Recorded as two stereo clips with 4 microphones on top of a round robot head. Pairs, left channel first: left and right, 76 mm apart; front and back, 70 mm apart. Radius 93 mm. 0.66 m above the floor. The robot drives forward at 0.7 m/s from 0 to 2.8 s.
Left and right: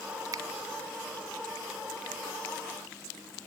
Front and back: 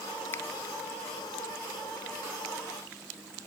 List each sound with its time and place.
0.3 s a finger snap: 55° right; by 0.4 s 60° right